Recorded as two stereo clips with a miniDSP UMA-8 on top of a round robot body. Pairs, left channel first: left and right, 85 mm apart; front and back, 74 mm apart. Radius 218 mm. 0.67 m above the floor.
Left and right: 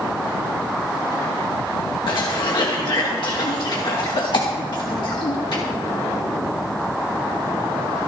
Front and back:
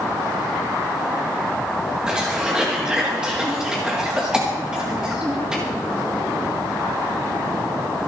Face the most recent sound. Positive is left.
turn(degrees=105)